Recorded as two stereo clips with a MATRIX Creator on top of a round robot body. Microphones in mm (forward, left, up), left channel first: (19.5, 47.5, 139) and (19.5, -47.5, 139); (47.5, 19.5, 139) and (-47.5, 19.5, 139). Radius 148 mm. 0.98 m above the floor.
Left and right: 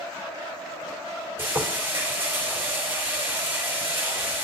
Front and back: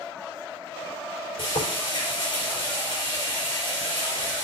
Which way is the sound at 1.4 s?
25° right.